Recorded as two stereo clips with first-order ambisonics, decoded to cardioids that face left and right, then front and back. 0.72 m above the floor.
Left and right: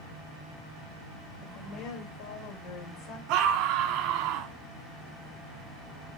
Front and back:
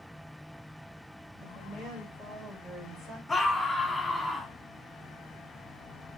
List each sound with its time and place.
1.4 s a woman speaking: 90° left, 4 m; by 3.2 s 95° left, 3 m
3.3 s a scream: 75° right, 1.5 m